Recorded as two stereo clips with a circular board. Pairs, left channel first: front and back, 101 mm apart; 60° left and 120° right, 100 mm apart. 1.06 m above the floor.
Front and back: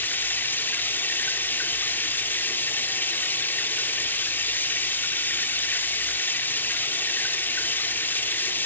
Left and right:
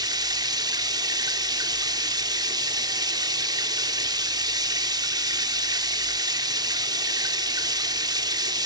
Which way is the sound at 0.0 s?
70° right.